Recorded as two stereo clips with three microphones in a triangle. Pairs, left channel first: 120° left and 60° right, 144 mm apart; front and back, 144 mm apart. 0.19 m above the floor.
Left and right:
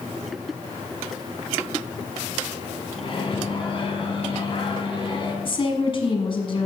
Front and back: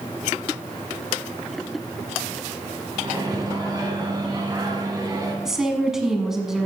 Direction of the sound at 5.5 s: 95° left.